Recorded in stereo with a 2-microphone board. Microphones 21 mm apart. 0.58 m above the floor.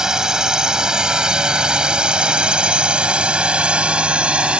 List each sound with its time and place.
0.0 s a drone: 35° right (ahead or behind); by 4.6 s 70° right (ahead or behind)